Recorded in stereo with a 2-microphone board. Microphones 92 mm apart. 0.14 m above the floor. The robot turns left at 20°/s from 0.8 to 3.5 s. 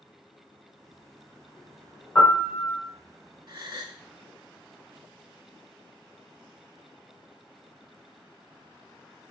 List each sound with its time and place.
2.1 s a piano: 20° left (ahead or behind), 1.9 m; by 2.8 s 25° left (ahead or behind), 1.9 m
3.5 s a gasp: 50° right (ahead or behind), 0.5 m